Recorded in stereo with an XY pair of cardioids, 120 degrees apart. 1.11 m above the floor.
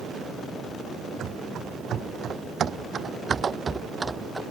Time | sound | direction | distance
1.2 | running footsteps | 60° right | ?